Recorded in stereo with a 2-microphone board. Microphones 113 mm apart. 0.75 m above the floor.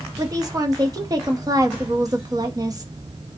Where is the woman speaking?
35° right (ahead or behind), 0.7 m.